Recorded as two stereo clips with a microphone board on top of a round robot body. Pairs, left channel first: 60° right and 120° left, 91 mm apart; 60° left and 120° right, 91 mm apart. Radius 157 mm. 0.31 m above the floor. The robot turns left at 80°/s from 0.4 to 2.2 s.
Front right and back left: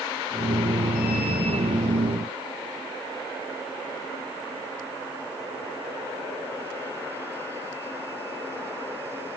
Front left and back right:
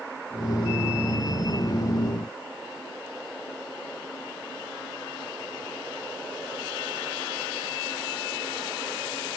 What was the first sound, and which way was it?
Only background noise.